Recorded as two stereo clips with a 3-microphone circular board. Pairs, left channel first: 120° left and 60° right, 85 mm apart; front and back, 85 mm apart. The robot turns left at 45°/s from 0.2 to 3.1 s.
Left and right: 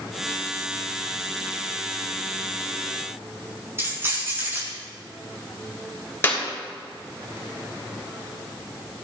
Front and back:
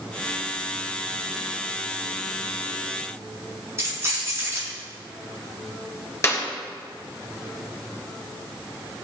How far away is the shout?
I don't hear a shout.